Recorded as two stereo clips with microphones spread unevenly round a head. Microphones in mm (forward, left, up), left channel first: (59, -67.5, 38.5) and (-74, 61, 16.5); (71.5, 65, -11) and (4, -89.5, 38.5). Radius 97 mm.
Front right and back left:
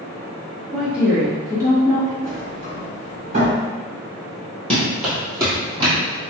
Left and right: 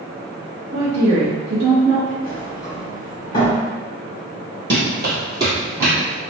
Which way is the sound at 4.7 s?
120° right.